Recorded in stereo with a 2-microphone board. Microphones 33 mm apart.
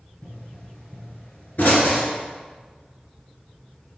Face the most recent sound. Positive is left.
turn(degrees=60)  # may be behind; listen again after turning